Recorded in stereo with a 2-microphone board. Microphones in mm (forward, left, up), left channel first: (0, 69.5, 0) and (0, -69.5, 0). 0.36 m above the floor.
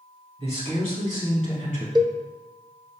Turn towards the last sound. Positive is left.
turn(degrees=-30)  # may be behind; listen again after turning